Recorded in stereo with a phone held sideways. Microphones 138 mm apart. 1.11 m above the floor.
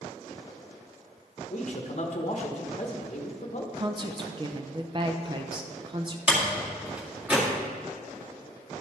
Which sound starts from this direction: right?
A woman speaking, at 3.8 s.